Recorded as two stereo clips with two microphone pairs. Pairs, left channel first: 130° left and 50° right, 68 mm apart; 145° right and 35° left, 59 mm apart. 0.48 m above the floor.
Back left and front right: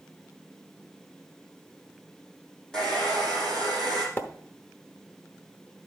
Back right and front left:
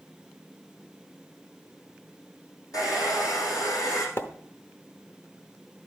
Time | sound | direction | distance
2.7 | a hair dryer | 145° right | 4.5 m
4.2 | a splash | 175° right | 0.9 m